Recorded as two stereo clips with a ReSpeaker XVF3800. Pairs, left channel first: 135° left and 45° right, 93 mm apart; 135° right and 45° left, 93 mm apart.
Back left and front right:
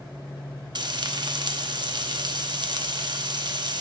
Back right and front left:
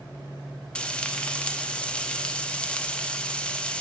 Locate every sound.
0.8 s frying: 60° right, 0.6 m